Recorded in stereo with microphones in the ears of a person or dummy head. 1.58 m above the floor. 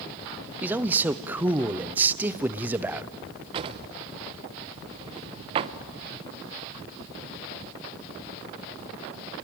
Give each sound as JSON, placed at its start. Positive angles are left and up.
{"t": 0.6, "sound": "a man speaking", "side_deg": -10, "distance_m": 0.5}
{"t": 3.5, "sound": "a drawer", "side_deg": -30, "distance_m": 0.7}